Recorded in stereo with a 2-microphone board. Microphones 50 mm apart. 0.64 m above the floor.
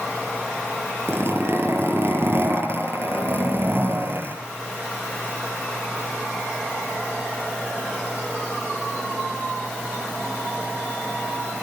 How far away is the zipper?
About 7 m.